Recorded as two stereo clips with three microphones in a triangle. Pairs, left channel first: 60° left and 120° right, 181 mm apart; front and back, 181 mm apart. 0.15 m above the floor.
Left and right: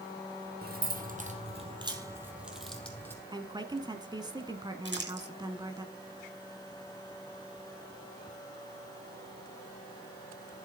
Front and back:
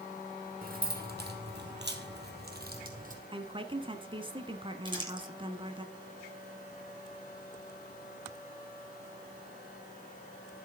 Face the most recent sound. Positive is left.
turn(degrees=-120)